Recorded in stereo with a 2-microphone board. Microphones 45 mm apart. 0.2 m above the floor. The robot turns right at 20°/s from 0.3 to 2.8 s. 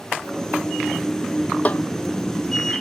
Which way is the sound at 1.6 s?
35° left (ahead or behind).